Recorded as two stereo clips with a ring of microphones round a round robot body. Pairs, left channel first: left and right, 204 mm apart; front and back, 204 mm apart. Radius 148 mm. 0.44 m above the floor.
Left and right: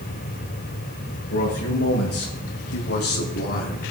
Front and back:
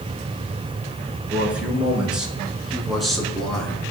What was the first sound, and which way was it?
A man speaking, 95° left.